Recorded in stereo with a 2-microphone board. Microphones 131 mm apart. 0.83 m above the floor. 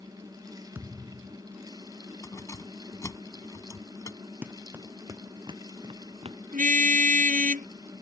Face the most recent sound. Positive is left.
turn(degrees=-80)